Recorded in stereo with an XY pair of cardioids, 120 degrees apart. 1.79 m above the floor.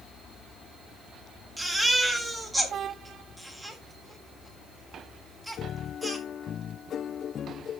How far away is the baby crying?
About 3.5 m.